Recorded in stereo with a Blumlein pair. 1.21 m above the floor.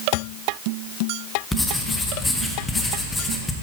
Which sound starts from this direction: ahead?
Writing, at 1.5 s.